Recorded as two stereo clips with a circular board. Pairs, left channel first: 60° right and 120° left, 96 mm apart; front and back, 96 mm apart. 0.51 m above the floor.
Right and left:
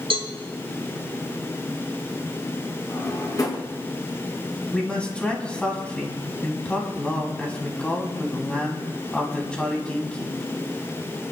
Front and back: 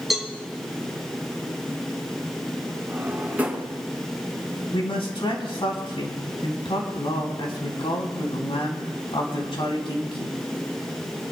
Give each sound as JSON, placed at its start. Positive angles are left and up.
{"t": 0.1, "sound": "a cowbell", "azimuth_deg": 95, "distance_m": 2.5}
{"t": 2.9, "sound": "a drawer", "azimuth_deg": -105, "distance_m": 2.5}
{"t": 4.7, "sound": "a man speaking", "azimuth_deg": 20, "distance_m": 3.0}